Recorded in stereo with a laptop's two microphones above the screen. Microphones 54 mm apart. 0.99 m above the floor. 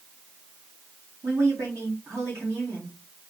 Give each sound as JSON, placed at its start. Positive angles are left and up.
{"t": 1.2, "sound": "a woman speaking", "side_deg": -70, "distance_m": 2.0}